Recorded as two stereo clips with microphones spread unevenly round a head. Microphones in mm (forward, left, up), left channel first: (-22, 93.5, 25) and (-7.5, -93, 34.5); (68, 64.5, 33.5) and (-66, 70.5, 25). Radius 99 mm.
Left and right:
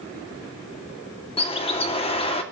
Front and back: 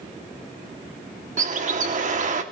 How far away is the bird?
About 2.5 m.